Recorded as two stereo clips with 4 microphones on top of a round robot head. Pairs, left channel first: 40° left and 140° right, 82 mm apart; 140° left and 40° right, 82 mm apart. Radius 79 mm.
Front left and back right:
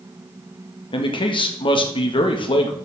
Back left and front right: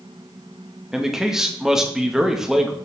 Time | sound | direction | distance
0.9 | a man speaking | 40° left | 1.8 m